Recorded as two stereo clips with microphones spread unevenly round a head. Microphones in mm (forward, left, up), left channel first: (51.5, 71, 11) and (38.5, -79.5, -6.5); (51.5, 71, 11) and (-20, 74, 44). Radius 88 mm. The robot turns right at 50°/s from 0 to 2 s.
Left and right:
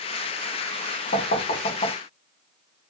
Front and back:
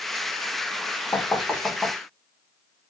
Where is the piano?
No piano in this recording.